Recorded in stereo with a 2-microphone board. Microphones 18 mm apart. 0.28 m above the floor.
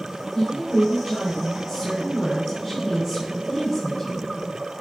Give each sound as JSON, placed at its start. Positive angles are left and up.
{"t": 0.3, "sound": "a woman speaking", "side_deg": 5, "distance_m": 3.0}